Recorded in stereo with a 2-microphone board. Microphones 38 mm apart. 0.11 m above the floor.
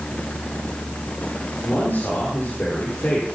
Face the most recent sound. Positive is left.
turn(degrees=50)  # may be behind; listen again after turning